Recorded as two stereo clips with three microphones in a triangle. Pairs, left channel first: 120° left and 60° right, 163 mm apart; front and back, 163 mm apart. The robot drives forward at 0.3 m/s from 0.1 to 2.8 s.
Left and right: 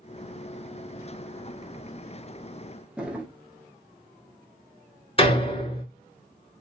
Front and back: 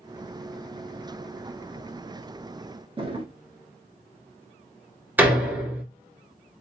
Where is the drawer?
140° right, 0.8 m.